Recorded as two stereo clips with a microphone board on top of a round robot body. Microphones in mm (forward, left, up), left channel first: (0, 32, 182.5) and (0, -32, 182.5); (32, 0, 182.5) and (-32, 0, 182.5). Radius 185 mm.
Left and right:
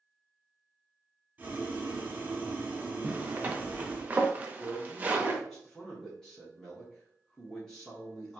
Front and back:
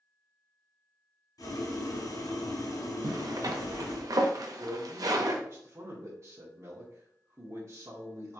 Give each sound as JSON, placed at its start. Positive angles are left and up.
{"t": 1.4, "sound": "boiling", "azimuth_deg": -25, "distance_m": 1.9}
{"t": 3.0, "sound": "a zipper", "azimuth_deg": -155, "distance_m": 0.8}
{"t": 4.6, "sound": "a man speaking", "azimuth_deg": 165, "distance_m": 1.8}